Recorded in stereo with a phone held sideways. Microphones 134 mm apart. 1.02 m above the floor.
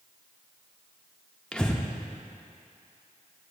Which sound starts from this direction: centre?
Breathing, at 1.5 s.